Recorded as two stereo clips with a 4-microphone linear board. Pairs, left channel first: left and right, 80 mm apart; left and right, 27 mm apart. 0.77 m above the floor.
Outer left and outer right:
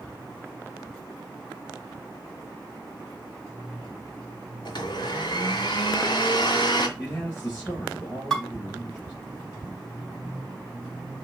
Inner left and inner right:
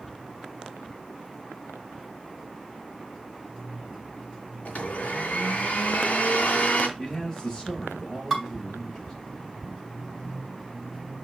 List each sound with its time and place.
4.7 s a blender: 65° left (ahead or behind), 2 m
7.0 s a man speaking: 20° left (ahead or behind), 3.5 m
8.3 s dishes clattering: 5° left (ahead or behind), 4 m